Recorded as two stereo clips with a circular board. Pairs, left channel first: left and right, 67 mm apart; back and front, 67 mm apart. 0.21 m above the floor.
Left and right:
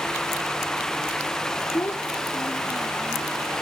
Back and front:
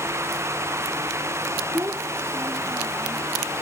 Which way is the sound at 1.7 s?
45° left.